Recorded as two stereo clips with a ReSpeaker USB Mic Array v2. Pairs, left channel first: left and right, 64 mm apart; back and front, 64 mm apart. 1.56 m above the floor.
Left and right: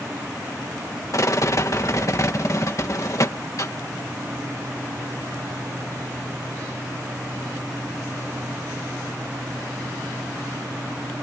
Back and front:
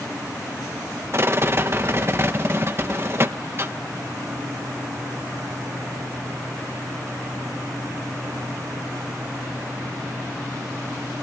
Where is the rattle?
50° left.